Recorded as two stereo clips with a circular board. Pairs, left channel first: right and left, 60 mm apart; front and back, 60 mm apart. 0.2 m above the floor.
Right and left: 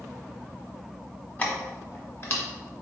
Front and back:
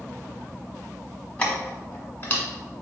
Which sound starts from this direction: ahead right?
Keys jangling, at 1.4 s.